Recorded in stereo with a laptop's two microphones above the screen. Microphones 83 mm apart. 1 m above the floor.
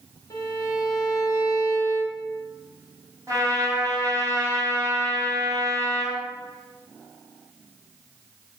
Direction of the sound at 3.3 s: 40° right (ahead or behind).